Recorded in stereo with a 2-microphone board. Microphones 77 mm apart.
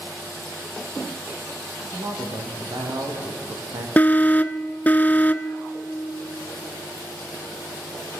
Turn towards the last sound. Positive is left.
turn(degrees=20)  # may be behind; listen again after turning